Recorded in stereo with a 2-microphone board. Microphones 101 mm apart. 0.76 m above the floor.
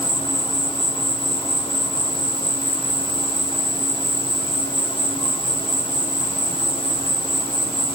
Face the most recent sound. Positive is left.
turn(degrees=65)  # may be behind; listen again after turning